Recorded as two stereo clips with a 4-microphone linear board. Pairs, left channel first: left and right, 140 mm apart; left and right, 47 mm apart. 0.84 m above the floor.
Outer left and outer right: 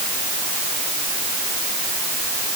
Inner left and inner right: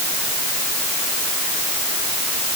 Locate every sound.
Only background noise.